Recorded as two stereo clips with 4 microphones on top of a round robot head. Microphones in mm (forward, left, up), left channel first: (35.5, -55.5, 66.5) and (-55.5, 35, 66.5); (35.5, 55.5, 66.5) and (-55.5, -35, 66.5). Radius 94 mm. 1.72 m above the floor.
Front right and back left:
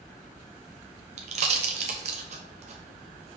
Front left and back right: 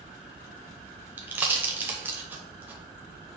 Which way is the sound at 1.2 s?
155° left.